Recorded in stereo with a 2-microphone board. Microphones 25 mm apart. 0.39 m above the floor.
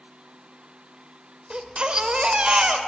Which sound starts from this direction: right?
A baby crying, at 1.5 s.